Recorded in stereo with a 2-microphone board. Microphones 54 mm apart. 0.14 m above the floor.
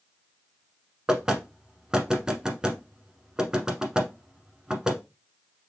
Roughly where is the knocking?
Centre.